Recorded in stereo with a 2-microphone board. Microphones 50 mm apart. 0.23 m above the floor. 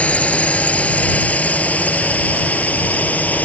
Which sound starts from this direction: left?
A drone, at 0.0 s.